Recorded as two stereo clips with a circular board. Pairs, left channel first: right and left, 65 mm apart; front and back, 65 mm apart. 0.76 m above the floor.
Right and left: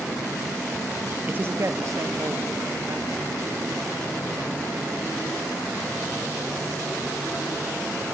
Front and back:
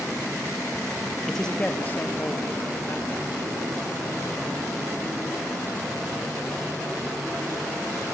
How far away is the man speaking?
About 0.8 m.